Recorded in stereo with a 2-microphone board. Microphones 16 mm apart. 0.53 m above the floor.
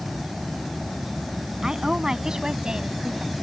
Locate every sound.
1.6 s a woman speaking: 55° right (ahead or behind); by 3.3 s 75° right (ahead or behind)